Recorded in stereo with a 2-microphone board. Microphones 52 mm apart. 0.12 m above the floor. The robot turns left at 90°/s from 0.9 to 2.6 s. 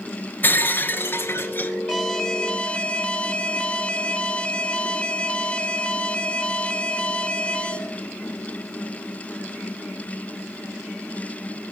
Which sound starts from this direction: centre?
An alarm, at 1.9 s.